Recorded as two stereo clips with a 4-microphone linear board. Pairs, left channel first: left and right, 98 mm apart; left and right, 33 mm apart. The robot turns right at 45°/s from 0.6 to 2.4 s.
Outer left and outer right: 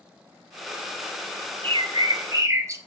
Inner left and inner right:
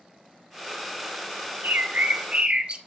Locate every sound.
1.6 s a bird: 65° right, 0.7 m; by 2.8 s 30° right, 0.7 m